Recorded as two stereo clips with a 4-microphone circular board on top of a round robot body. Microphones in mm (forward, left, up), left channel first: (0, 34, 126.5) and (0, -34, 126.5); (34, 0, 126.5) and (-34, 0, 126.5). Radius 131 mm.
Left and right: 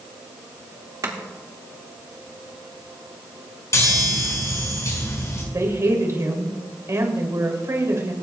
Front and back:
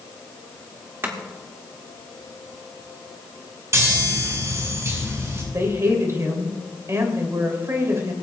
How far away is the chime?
About 5.5 m.